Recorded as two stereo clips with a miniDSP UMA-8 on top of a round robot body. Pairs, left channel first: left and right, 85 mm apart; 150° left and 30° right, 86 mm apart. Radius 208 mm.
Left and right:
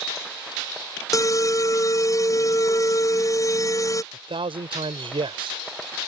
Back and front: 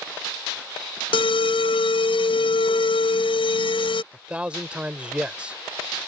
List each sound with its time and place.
1.1 s an alarm: 140° left
4.1 s a man speaking: 110° right